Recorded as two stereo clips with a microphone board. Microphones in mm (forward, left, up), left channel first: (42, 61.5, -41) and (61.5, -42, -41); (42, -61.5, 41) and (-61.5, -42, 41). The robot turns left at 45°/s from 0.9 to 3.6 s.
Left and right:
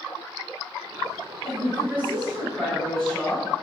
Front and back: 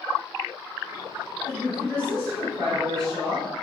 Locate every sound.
1.4 s a woman speaking: 115° right, 1.4 m; by 3.5 s 155° left, 1.4 m